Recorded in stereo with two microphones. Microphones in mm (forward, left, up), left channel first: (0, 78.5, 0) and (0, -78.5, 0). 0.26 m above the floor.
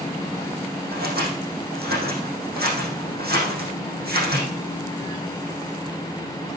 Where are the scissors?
80° right, 5.5 m.